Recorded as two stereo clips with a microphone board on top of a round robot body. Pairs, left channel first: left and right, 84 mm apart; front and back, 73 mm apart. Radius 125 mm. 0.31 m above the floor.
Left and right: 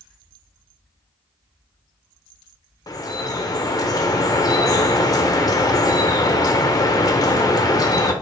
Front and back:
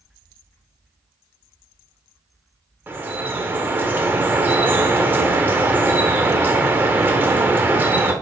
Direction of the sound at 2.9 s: 125° left.